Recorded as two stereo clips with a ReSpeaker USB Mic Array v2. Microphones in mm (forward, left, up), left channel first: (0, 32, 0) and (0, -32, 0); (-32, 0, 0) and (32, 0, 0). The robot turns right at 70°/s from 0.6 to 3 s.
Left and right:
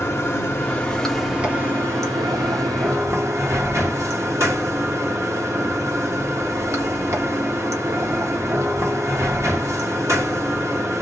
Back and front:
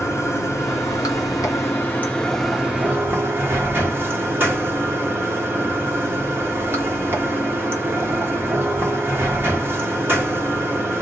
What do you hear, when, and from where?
0.0 s running water: 140° left, 1.0 m; by 11.0 s 55° right, 1.0 m